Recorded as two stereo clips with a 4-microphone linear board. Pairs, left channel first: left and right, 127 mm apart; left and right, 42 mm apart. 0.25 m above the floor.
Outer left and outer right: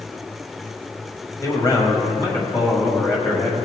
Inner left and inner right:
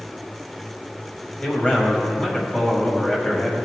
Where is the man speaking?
25° left (ahead or behind), 1.6 m.